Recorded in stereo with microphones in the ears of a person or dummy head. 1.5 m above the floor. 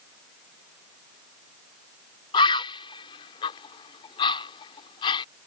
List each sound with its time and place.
2.3 s a bird: 30° left (ahead or behind)